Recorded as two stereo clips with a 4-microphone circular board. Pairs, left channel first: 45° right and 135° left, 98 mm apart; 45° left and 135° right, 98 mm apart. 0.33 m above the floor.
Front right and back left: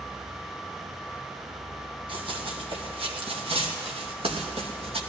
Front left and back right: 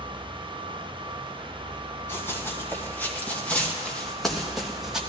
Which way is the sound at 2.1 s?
110° left.